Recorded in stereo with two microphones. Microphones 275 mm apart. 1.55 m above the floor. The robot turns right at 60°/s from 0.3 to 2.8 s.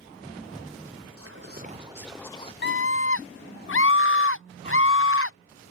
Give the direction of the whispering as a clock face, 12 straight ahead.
2 o'clock.